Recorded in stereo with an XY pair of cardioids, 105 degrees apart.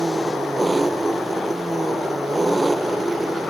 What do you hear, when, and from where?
0.0 s an engine running: 10° right